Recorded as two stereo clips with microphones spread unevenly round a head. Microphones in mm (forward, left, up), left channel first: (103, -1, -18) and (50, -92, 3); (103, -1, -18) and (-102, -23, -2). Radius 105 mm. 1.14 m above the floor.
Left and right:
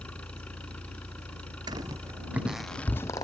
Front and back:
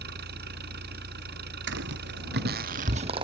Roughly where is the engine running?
Behind left.